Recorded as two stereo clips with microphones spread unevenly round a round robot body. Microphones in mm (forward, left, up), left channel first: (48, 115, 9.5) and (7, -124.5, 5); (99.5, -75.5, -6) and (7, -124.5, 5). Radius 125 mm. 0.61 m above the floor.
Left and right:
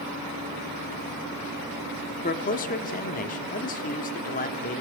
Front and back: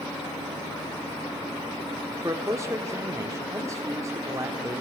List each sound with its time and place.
2.2 s a man speaking: 135° left, 1.2 m